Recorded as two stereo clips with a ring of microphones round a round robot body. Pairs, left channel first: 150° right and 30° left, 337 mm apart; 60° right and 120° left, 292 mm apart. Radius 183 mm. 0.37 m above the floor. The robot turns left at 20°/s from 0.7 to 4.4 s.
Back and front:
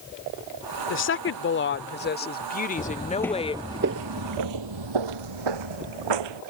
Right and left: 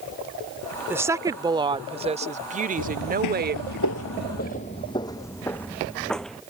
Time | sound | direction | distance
0.9 | a woman speaking | 160° right | ?
2.8 | footsteps | 75° right | ?